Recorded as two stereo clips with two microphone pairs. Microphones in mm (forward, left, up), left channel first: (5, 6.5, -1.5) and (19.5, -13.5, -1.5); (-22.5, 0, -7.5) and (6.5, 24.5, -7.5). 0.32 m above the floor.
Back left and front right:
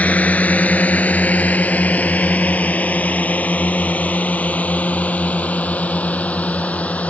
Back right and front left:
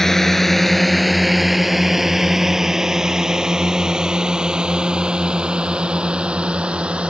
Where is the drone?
140° left; by 7.1 s 100° left.